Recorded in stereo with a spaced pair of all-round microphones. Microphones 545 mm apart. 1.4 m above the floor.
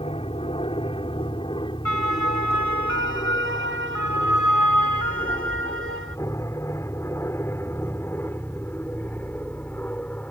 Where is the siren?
90° left.